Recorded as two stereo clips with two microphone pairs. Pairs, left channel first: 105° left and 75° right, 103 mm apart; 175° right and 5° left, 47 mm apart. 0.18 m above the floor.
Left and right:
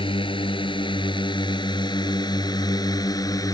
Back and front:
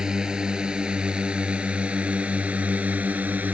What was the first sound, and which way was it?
A drone, 80° left.